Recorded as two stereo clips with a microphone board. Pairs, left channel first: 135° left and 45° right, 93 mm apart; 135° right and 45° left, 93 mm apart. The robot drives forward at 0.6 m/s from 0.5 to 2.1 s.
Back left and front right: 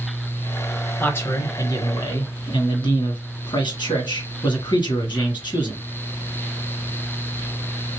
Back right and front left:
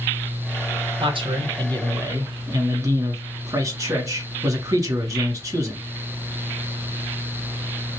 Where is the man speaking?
65° left, 1.1 m; by 5.8 s 100° left, 1.1 m.